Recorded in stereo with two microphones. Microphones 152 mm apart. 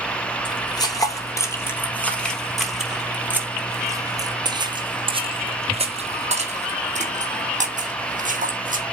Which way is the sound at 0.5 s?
30° left (ahead or behind).